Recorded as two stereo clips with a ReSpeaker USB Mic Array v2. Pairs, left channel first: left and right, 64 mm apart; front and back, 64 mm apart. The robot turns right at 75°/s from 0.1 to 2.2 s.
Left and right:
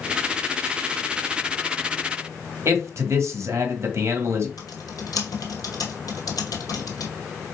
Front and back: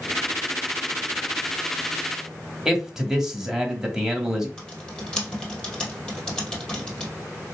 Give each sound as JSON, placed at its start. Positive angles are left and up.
{"t": 2.6, "sound": "a man speaking", "azimuth_deg": -100, "distance_m": 1.3}
{"t": 4.6, "sound": "typing on a keyboard", "azimuth_deg": 80, "distance_m": 2.0}